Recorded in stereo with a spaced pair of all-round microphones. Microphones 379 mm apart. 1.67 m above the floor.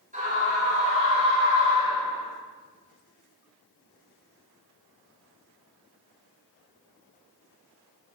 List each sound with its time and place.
0.1 s a scream: 20° right (ahead or behind), 8 m; by 2.3 s 10° right (ahead or behind), 8.5 m